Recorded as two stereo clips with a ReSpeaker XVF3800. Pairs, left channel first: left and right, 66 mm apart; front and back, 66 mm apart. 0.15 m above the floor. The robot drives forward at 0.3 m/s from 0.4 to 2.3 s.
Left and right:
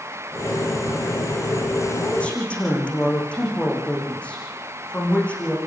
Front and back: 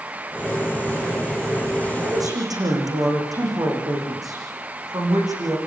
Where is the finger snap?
I don't hear a finger snap.